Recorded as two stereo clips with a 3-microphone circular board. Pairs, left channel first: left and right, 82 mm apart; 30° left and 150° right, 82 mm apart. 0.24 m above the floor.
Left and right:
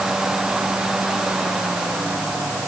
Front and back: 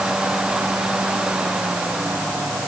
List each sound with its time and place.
Only background noise.